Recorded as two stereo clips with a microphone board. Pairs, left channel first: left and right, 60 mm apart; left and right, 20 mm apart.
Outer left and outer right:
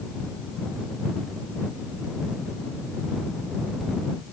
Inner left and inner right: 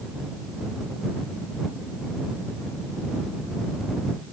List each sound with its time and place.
Only background noise.